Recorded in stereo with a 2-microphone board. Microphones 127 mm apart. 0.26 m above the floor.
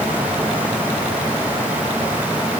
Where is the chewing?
No chewing in this recording.